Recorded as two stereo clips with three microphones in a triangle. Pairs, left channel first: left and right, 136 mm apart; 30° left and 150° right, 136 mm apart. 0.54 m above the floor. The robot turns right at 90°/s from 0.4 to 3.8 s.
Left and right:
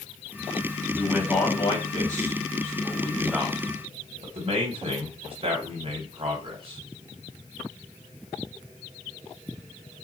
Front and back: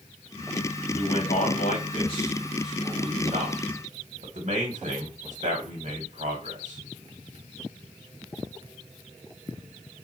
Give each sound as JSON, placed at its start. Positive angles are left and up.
{"t": 0.9, "sound": "a man speaking", "azimuth_deg": -20, "distance_m": 1.3}